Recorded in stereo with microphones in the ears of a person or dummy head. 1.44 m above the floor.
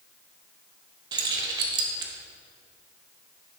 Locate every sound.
1.1 s keys jangling: 25° right (ahead or behind), 0.8 m